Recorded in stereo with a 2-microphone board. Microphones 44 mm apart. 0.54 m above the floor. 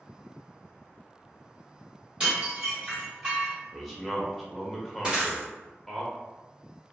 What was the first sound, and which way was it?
Dishes clattering, 25° right (ahead or behind).